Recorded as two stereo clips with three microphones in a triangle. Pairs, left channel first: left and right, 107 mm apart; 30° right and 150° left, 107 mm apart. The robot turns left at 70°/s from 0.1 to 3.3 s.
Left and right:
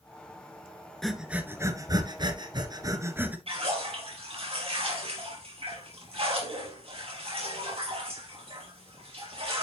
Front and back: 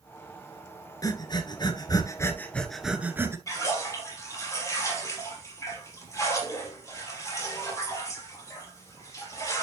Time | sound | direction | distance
1.0 | breathing | 5° left | 1.3 m
3.5 | a splash | 85° right | 3.5 m